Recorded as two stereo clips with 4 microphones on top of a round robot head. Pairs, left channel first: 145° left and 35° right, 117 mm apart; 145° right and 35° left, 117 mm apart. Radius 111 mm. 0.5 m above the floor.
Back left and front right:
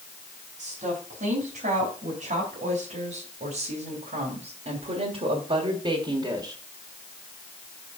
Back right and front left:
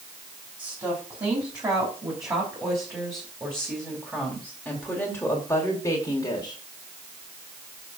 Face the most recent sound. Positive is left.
turn(degrees=-95)